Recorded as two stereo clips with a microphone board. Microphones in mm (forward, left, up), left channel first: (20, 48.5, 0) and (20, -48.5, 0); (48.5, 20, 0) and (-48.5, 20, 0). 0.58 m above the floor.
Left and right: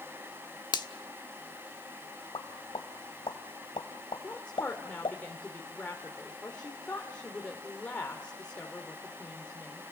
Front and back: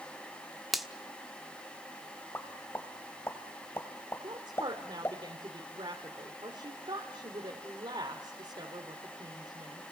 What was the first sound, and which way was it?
A finger snap, 90° left.